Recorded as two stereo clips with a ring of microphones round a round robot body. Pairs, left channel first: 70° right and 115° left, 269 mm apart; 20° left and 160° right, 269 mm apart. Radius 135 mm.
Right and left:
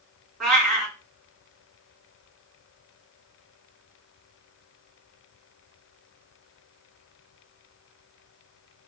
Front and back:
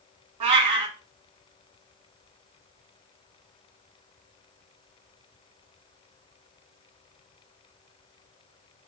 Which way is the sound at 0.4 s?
160° right.